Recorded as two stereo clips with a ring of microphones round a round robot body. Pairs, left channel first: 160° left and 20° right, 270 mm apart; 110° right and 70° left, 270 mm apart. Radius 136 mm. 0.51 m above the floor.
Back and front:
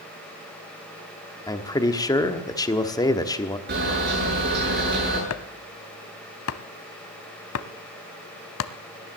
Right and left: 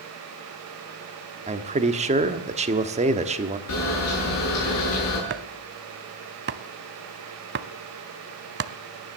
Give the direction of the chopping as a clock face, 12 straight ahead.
8 o'clock.